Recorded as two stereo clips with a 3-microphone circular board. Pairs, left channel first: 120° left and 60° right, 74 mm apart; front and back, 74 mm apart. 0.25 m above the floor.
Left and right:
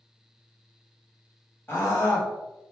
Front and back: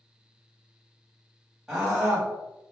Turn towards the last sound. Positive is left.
turn(degrees=95)